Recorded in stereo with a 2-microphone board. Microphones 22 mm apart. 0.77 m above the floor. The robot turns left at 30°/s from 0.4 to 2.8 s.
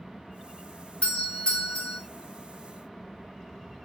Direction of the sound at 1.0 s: 55° left (ahead or behind).